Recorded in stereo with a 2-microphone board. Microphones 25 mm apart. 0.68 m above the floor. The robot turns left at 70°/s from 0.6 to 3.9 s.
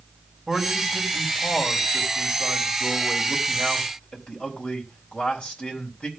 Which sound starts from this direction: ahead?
A man speaking, at 0.5 s.